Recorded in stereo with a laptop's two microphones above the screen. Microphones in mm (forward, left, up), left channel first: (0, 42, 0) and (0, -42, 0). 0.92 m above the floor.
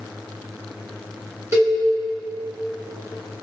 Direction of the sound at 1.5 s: 35° right (ahead or behind).